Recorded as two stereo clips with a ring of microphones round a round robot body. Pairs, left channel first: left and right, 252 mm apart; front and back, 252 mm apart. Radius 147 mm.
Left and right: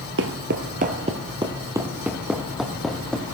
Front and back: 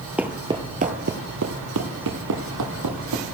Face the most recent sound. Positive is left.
turn(degrees=175)